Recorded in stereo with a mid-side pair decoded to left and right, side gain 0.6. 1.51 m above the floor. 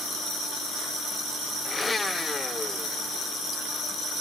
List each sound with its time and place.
1.6 s a blender: 20° left